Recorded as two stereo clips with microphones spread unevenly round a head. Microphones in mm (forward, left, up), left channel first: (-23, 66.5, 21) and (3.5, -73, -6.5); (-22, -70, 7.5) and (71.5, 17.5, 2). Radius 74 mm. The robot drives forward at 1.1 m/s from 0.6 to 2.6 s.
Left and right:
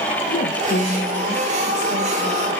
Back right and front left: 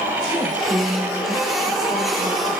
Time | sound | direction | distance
0.3 | a woman speaking | 125° left | 1.5 m